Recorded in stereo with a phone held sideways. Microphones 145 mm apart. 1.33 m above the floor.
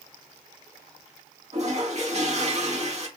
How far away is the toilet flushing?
About 0.9 m.